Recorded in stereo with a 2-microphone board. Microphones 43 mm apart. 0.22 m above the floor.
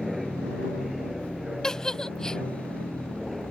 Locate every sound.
0.0 s an aircraft: 5° right (ahead or behind); by 3.5 s centre (ahead or behind)
1.6 s a giggle: 15° left (ahead or behind)